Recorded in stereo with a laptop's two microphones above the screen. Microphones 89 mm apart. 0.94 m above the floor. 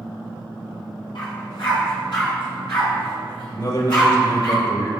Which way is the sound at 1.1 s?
60° left (ahead or behind).